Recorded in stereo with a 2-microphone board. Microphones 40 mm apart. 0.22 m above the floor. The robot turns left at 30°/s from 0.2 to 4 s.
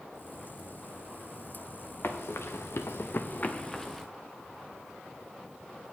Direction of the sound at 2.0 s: 60° left (ahead or behind).